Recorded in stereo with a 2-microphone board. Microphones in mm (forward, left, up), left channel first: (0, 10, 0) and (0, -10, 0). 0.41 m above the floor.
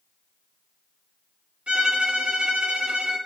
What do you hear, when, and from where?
1.7 s a violin: 80° right, 3.5 m